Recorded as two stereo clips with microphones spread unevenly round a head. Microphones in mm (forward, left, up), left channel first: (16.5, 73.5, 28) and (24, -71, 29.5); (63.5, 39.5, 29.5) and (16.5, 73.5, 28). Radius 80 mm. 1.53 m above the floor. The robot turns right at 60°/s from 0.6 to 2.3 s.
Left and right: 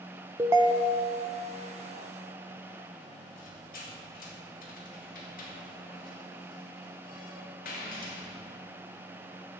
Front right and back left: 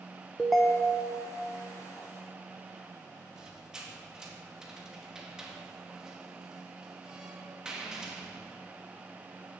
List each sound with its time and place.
0.4 s a ringtone: 125° right, 0.5 m; by 1.2 s 85° right, 0.5 m
3.4 s a squeak: 65° left, 2 m